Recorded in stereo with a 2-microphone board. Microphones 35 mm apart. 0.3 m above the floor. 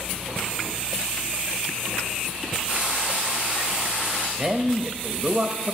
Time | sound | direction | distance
2.7 | frying | 35° right (ahead or behind) | 5.5 m
4.4 | a man speaking | 25° right (ahead or behind) | 0.9 m